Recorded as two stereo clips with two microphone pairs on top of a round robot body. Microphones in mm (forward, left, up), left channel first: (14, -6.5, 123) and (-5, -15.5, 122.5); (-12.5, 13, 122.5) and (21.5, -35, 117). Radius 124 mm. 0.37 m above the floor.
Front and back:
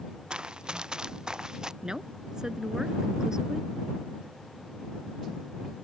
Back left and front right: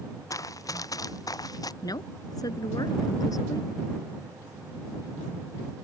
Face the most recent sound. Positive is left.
turn(degrees=145)